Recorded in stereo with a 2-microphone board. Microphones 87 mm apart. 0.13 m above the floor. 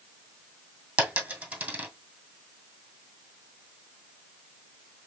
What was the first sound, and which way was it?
A dropped coin, 15° right (ahead or behind).